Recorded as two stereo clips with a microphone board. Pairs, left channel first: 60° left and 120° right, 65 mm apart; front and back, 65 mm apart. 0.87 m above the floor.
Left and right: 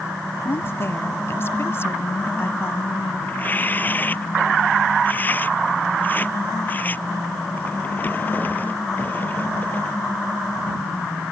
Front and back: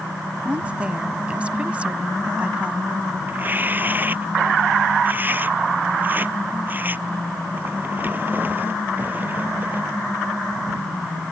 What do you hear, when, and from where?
0.5 s a woman speaking: 110° left
3.3 s tearing paper: 120° left